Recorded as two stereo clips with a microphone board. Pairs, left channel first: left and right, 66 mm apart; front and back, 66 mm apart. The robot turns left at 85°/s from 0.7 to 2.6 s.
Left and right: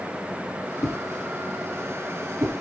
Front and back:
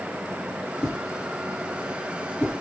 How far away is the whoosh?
About 3 m.